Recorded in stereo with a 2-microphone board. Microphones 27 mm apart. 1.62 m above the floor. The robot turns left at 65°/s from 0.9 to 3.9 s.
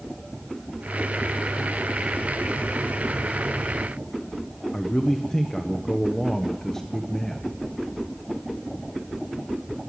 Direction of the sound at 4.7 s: 15° left (ahead or behind).